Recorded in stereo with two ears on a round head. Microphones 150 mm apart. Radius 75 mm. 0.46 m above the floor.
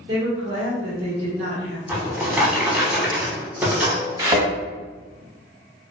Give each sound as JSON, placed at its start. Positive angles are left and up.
{"t": 0.1, "sound": "a woman speaking", "side_deg": -35, "distance_m": 1.0}
{"t": 1.9, "sound": "a drawer", "side_deg": -10, "distance_m": 0.7}
{"t": 4.2, "sound": "a thud", "side_deg": -20, "distance_m": 1.0}